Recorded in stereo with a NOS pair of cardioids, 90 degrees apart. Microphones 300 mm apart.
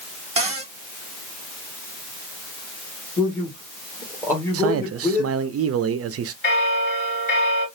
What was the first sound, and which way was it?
A cupboard door, 20° right.